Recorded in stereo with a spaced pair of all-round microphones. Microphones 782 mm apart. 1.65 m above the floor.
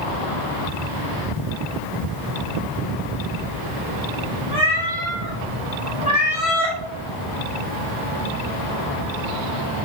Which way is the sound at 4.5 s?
25° left (ahead or behind).